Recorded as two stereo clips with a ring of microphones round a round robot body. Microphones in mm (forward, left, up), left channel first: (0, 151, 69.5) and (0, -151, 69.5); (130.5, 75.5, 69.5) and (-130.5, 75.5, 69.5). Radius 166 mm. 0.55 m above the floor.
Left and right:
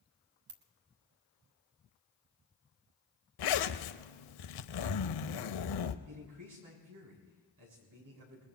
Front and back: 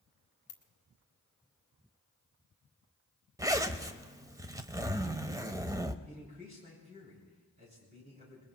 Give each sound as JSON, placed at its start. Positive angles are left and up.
{"t": 0.5, "sound": "a ringtone", "azimuth_deg": -45, "distance_m": 1.6}
{"t": 3.4, "sound": "a zipper", "azimuth_deg": 100, "distance_m": 0.8}
{"t": 6.0, "sound": "a man speaking", "azimuth_deg": -115, "distance_m": 6.5}